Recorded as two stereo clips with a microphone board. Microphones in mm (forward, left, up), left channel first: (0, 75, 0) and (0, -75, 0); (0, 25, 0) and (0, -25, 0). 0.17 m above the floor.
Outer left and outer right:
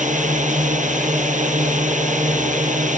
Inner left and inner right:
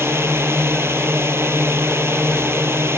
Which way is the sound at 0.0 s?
55° right (ahead or behind).